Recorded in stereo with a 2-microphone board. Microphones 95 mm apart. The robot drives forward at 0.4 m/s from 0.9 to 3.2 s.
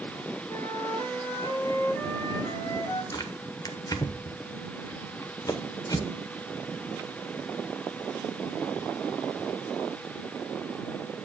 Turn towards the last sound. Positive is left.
turn(degrees=40)  # may be behind; listen again after turning